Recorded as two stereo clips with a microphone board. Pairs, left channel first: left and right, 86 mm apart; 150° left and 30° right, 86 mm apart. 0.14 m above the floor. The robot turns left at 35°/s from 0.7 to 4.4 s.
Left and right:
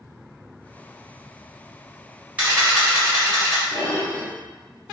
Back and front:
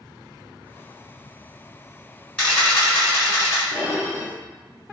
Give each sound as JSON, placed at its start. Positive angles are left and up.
{"t": 2.4, "sound": "a camera shutter", "azimuth_deg": -145, "distance_m": 1.9}
{"t": 3.7, "sound": "dishes clattering", "azimuth_deg": 50, "distance_m": 1.1}